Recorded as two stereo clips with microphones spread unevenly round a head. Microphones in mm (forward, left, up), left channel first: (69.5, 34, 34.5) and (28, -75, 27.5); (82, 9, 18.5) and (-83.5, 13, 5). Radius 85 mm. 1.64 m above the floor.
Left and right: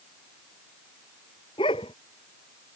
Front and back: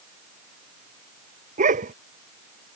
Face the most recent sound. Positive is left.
turn(degrees=130)